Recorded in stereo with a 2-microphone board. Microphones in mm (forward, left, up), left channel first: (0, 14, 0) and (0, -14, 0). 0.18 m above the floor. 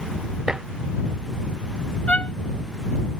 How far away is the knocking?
I don't hear knocking.